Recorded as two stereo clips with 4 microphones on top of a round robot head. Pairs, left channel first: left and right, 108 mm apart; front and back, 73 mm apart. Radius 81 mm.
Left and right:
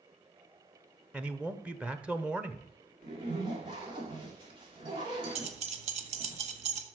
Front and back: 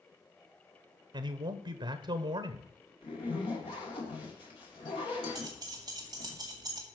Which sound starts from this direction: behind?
A man speaking, at 1.1 s.